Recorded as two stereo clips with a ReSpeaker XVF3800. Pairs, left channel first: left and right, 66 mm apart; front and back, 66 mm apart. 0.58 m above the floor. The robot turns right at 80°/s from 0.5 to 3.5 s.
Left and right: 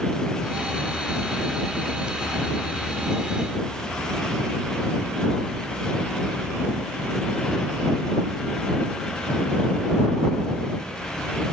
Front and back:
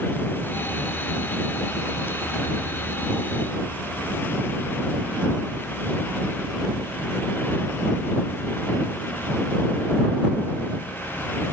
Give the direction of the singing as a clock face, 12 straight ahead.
I don't hear singing.